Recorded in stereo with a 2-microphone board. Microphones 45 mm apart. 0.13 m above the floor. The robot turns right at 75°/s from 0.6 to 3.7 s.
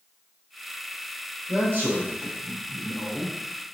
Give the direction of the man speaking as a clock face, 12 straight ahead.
5 o'clock.